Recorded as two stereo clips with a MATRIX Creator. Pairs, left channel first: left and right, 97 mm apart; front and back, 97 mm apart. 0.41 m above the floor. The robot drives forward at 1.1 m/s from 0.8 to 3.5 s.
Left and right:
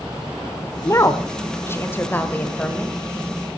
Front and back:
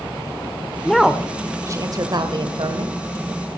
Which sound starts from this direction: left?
A woman speaking, at 0.8 s.